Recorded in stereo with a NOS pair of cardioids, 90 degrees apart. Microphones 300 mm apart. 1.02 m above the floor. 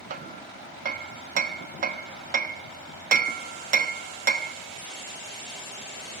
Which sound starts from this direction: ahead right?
Hammering, at 0.1 s.